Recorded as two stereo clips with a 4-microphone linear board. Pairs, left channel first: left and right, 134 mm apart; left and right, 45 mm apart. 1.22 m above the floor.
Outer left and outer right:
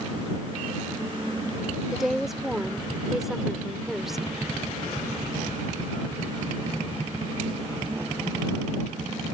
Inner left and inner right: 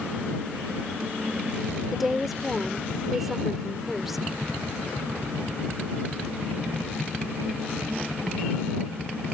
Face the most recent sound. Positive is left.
turn(degrees=0)  # may be behind; listen again after turning